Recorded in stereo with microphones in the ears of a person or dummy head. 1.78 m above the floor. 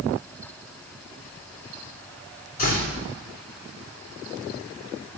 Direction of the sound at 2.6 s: 45° left (ahead or behind).